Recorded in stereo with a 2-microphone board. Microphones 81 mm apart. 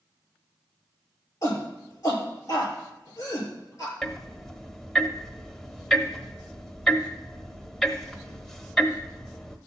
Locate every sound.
1.4 s a shout: 40° left (ahead or behind), 6 m
4.0 s ticking: 5° left (ahead or behind), 0.8 m